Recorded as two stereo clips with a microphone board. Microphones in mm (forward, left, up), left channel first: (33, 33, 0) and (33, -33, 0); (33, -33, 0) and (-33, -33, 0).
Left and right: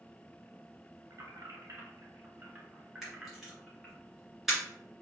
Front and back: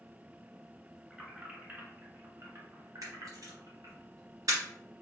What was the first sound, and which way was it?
Keys jangling, 105° right.